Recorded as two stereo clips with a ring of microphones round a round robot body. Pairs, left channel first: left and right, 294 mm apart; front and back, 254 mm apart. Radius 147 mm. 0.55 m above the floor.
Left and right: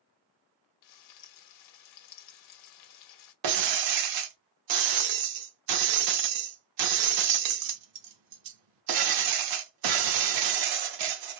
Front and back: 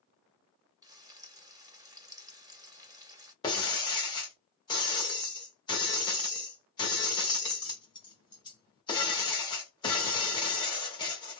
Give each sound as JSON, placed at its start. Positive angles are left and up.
{"t": 0.8, "sound": "frying", "azimuth_deg": 105, "distance_m": 1.0}
{"t": 3.4, "sound": "breaking glass", "azimuth_deg": -75, "distance_m": 0.6}